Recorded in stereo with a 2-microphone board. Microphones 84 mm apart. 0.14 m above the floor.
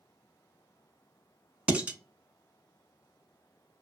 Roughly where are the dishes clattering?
Centre.